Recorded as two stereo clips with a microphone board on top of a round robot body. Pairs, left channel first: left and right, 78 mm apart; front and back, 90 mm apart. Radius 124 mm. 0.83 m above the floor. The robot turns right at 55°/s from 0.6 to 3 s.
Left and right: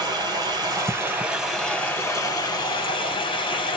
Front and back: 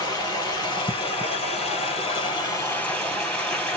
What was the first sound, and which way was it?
Running water, 50° right.